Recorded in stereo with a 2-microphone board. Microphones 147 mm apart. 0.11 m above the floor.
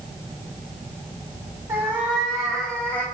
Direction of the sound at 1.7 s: 15° right (ahead or behind).